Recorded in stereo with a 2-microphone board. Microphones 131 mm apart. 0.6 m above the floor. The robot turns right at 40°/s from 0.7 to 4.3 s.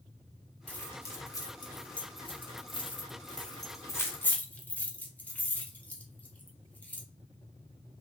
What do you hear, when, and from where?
0.7 s keys jangling: 10° left (ahead or behind), 0.7 m